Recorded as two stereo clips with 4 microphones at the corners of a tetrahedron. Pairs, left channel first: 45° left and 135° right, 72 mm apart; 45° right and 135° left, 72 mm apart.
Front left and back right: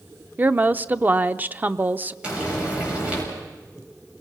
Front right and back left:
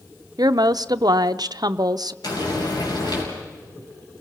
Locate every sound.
0.4 s a woman speaking: 160° left, 0.6 m
2.2 s frying: 60° right, 6.5 m